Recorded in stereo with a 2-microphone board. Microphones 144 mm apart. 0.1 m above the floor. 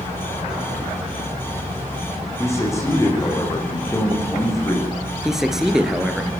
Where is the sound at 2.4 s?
20° left (ahead or behind), 8 m.